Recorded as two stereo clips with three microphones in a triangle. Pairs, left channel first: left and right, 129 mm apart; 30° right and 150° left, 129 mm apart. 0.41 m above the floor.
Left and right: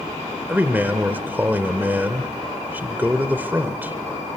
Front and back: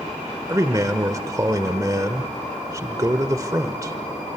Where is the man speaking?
155° right, 1.1 m.